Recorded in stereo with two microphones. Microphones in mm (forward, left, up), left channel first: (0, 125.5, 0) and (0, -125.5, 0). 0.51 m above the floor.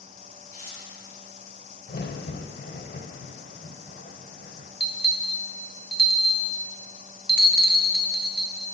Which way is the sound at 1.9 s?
45° left (ahead or behind).